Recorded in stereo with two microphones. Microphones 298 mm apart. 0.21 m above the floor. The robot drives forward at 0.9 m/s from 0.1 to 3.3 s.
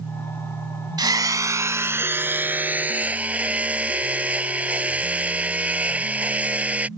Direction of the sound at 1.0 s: 15° right (ahead or behind).